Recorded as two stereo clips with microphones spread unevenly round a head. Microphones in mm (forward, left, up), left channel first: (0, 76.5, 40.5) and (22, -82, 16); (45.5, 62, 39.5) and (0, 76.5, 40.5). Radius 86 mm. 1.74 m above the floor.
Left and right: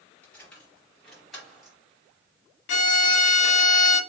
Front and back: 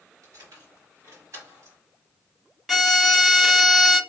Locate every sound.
0.2 s keys jangling: straight behind, 2.5 m; by 1.8 s 175° right, 1.4 m
2.7 s a violin: 75° left, 0.7 m